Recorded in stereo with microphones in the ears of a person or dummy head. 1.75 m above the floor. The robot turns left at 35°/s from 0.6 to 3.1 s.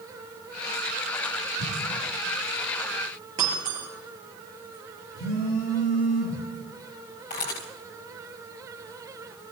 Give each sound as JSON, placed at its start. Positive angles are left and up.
{"t": 1.6, "sound": "an explosion", "side_deg": -75, "distance_m": 9.5}
{"t": 3.4, "sound": "breaking glass", "side_deg": -25, "distance_m": 4.5}
{"t": 5.2, "sound": "a phone buzzing", "side_deg": 70, "distance_m": 6.0}
{"t": 7.3, "sound": "a camera shutter", "side_deg": 35, "distance_m": 1.7}